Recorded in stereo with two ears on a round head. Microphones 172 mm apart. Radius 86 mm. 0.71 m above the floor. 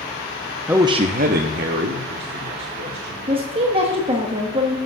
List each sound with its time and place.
0.7 s a man speaking: 5° right (ahead or behind), 0.5 m; by 3.2 s 60° right (ahead or behind), 2 m
3.3 s a woman speaking: 30° right (ahead or behind), 1.2 m